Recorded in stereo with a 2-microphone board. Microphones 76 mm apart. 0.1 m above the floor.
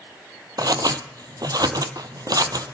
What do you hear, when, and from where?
0.6 s scissors: 70° right (ahead or behind), 0.7 m